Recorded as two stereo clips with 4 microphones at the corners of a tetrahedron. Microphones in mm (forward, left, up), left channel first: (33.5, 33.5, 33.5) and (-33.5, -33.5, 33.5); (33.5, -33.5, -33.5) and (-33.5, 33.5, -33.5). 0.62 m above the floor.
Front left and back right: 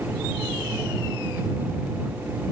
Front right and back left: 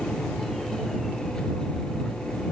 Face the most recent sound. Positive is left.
No sound to turn to.